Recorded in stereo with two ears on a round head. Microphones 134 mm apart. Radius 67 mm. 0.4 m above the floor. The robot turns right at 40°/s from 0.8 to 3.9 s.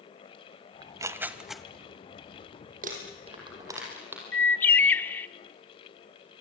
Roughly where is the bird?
Centre.